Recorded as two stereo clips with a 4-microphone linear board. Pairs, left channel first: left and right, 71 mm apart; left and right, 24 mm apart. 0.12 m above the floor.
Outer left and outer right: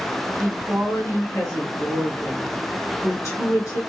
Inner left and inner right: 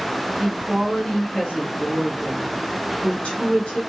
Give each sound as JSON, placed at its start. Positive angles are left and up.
{"t": 0.4, "sound": "a woman speaking", "side_deg": 50, "distance_m": 2.5}